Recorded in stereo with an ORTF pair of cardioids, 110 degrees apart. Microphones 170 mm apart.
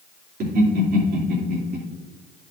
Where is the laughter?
60° right, 3 m.